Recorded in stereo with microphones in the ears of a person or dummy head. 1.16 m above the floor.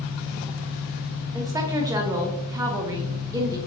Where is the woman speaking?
15° right (ahead or behind), 0.6 m.